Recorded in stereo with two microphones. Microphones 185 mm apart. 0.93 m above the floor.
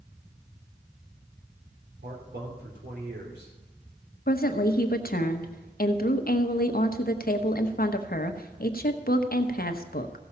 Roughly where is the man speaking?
Right.